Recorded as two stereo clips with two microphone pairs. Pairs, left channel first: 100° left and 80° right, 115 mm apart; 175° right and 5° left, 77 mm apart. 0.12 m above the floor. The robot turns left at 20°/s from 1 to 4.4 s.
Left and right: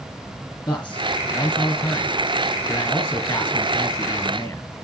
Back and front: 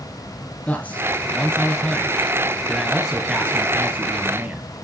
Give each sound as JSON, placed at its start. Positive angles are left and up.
{"t": 0.7, "sound": "a man speaking", "azimuth_deg": 130, "distance_m": 1.1}